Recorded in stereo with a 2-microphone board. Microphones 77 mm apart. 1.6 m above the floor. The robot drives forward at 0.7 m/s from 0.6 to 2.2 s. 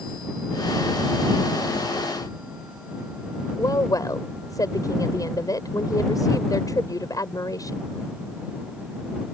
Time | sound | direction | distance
3.6 | a woman speaking | 45° left (ahead or behind) | ?